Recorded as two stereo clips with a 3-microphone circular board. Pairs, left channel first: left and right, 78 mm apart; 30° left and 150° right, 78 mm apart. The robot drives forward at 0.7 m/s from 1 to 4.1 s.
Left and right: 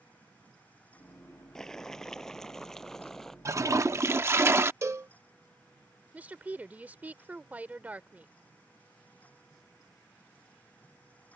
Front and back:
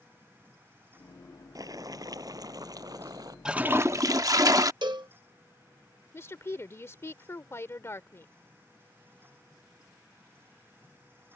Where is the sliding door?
No sliding door in this recording.